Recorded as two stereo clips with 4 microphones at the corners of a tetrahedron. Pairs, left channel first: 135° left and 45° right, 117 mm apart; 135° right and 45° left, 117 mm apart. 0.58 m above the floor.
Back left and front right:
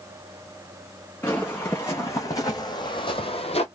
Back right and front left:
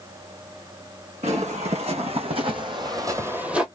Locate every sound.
1.2 s footsteps: 60° left, 2.0 m; by 3.7 s 130° left, 0.9 m